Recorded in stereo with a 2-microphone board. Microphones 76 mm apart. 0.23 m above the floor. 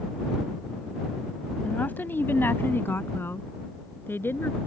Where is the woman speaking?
20° left (ahead or behind); by 4.6 s 30° left (ahead or behind).